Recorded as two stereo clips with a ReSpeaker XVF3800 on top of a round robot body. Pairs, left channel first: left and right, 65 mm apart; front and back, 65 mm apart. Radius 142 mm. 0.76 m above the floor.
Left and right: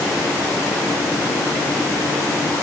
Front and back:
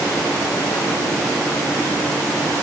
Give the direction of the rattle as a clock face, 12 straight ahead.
No rattle in this recording.